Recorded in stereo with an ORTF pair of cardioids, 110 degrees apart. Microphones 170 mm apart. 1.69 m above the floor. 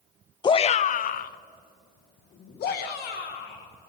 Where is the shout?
25° left, 0.5 m; by 3.7 s 70° left, 3 m.